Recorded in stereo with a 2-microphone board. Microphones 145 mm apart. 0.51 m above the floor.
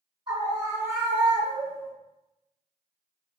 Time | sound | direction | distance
0.3 | a scream | 35° right (ahead or behind) | 1.2 m